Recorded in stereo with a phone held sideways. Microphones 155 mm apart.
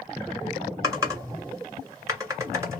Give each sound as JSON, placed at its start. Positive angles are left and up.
{"t": 0.8, "sound": "typing on a keyboard", "side_deg": -20, "distance_m": 1.2}